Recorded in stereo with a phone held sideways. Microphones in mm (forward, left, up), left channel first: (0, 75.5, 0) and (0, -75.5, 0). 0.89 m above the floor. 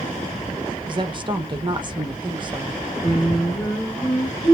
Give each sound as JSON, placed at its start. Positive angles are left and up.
{"t": 0.9, "sound": "a woman speaking", "side_deg": -35, "distance_m": 0.6}
{"t": 3.0, "sound": "singing", "side_deg": 25, "distance_m": 1.7}